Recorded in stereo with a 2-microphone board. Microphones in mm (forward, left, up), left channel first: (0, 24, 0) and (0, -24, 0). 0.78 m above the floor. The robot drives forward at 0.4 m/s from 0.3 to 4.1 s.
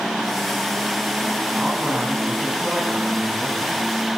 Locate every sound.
1.6 s a man speaking: 15° right (ahead or behind), 7.5 m; by 3.8 s 20° right (ahead or behind), 6.5 m